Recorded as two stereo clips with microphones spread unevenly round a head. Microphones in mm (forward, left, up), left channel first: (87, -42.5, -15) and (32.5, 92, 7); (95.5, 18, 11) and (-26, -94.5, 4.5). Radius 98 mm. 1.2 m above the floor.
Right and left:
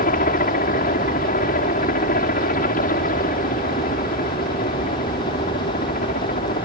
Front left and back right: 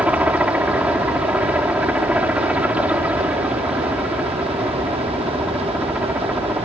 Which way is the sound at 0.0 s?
55° right.